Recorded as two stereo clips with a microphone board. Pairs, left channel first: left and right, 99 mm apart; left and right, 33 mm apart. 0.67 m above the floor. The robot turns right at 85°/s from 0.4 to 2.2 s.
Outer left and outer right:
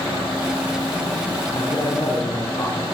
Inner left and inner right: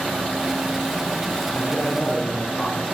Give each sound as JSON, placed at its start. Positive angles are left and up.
{"t": 1.5, "sound": "a man speaking", "azimuth_deg": 75, "distance_m": 9.5}